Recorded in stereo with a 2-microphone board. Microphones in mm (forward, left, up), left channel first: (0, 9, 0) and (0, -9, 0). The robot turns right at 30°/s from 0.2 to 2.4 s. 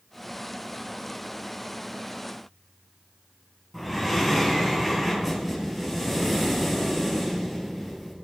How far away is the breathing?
About 3 m.